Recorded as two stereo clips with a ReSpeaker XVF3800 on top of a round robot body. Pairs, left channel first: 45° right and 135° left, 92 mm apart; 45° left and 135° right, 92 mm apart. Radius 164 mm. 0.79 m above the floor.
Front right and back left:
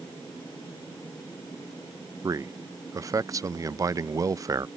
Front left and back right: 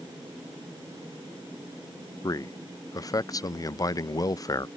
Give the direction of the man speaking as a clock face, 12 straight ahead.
9 o'clock.